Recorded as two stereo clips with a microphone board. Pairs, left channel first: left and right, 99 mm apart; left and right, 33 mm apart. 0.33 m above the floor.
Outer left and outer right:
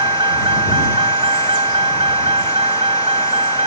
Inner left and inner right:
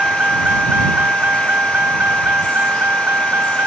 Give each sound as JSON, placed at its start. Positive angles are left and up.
{"t": 0.0, "sound": "a vehicle", "side_deg": -55}